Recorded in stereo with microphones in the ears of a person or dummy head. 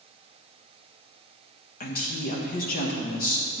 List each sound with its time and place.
1.8 s a woman speaking: 40° left (ahead or behind), 1.3 m